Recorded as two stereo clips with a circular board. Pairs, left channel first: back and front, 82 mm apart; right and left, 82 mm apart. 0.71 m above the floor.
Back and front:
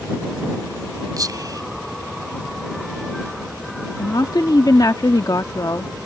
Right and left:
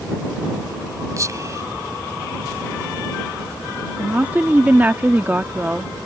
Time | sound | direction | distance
1.2 | whispering | 40° left | ?
4.0 | a woman speaking | 155° left | ?